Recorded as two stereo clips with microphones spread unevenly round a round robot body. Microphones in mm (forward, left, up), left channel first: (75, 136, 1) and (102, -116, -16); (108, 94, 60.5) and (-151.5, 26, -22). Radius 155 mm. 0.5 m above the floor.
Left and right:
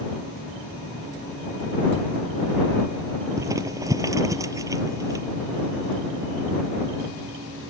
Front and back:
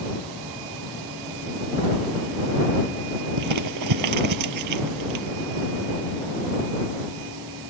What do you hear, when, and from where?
3.4 s crumpling: 165° right